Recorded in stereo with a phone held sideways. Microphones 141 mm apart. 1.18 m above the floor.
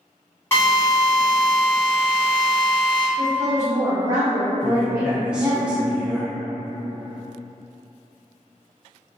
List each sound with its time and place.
0.5 s a drill: 15° left (ahead or behind), 1.0 m
3.2 s a woman speaking: 20° right (ahead or behind), 0.8 m
4.6 s a man speaking: 5° right (ahead or behind), 0.7 m